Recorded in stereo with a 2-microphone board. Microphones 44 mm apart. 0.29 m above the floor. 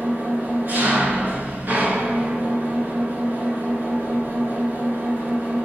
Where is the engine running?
40° right (ahead or behind), 1.8 m.